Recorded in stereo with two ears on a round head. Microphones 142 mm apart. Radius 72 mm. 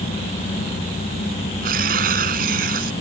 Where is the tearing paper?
65° right (ahead or behind).